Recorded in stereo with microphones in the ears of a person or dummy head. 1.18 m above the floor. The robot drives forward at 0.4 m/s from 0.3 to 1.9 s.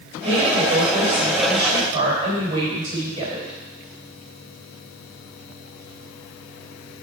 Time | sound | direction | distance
0.2 | a woman speaking | 30° right (ahead or behind) | 3.5 m